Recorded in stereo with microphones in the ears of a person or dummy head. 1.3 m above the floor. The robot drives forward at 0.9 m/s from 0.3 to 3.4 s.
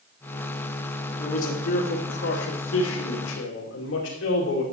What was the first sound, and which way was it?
A man speaking, 45° left (ahead or behind).